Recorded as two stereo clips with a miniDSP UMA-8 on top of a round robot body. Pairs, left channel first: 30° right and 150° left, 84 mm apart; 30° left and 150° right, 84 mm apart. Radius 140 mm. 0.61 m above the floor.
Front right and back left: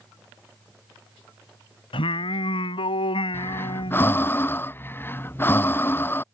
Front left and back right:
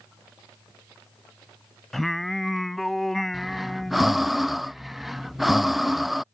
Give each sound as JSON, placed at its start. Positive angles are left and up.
{"t": 1.9, "sound": "singing", "azimuth_deg": -55}
{"t": 3.3, "sound": "breathing", "azimuth_deg": -65}